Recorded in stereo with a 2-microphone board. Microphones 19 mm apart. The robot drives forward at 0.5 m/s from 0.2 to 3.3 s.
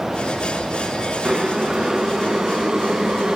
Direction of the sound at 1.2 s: 30° right (ahead or behind).